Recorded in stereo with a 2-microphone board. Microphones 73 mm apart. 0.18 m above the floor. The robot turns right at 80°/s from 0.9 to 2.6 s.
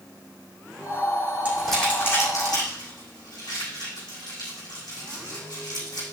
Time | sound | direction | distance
1.4 | crumpling | 15° right (ahead or behind) | 6.5 m